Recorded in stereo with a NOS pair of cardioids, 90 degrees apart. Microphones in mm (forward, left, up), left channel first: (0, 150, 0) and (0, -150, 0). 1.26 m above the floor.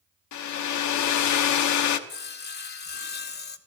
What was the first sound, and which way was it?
A hair dryer, 70° left.